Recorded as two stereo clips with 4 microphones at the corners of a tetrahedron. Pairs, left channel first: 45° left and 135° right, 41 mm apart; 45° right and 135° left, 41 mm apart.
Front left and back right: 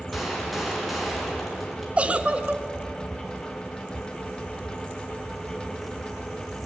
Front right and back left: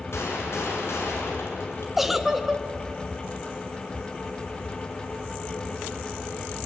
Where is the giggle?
150° right, 1.2 m.